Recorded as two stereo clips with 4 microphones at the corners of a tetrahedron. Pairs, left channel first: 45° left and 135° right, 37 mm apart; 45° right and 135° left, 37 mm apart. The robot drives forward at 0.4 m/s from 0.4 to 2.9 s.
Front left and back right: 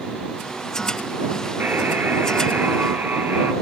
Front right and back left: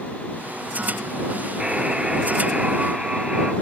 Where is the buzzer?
155° right, 2 m; by 3.5 s 160° right, 2.5 m.